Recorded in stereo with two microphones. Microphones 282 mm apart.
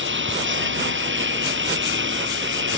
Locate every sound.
0.0 s a lawn mower: 40° right (ahead or behind)